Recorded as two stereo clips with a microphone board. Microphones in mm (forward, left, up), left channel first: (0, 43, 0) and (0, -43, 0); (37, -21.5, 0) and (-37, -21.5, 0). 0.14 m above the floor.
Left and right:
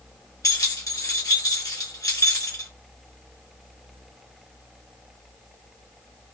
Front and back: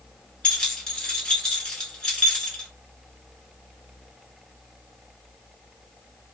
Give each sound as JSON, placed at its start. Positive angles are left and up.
{"t": 0.4, "sound": "keys jangling", "azimuth_deg": 75, "distance_m": 1.3}